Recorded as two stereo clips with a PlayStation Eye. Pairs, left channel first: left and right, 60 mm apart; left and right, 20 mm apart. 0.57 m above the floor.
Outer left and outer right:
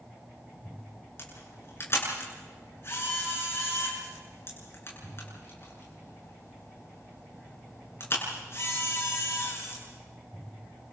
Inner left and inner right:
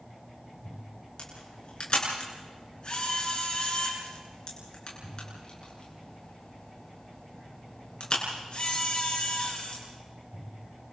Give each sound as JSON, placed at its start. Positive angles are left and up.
{"t": 1.2, "sound": "a camera shutter", "side_deg": 45, "distance_m": 8.0}